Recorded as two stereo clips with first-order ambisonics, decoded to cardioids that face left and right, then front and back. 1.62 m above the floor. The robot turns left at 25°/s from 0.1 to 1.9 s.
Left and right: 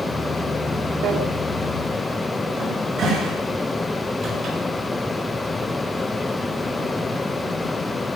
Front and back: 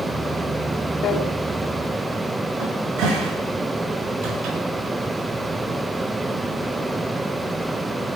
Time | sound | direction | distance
1.0 | a drawer | 50° right | 2.5 m
2.6 | a cupboard door | 145° right | 7 m